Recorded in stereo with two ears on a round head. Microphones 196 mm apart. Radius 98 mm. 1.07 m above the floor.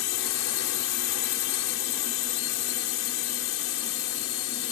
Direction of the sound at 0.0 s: 60° left (ahead or behind).